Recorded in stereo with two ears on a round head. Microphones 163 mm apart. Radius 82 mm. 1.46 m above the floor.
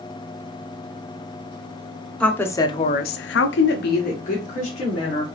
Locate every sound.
2.2 s a woman speaking: 5° left (ahead or behind), 1.2 m; by 5.2 s 40° left (ahead or behind), 2.5 m